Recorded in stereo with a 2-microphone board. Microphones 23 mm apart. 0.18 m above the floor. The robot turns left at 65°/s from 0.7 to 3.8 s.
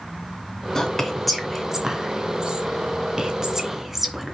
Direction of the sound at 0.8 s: 25° left (ahead or behind).